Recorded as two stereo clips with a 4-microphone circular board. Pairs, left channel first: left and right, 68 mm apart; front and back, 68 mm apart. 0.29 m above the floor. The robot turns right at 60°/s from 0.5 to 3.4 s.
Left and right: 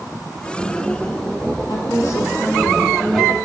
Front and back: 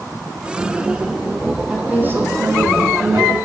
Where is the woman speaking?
100° left, 2.5 m; by 3.4 s 160° right, 2.5 m.